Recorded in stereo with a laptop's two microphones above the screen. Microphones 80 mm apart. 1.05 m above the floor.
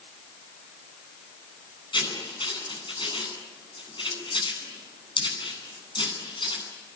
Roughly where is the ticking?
No ticking in this recording.